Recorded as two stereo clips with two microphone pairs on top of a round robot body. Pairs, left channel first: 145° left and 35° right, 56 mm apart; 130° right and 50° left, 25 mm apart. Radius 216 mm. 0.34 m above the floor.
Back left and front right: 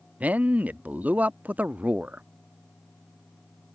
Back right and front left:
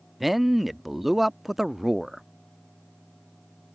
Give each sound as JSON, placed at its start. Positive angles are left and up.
{"t": 0.2, "sound": "a man speaking", "azimuth_deg": -20}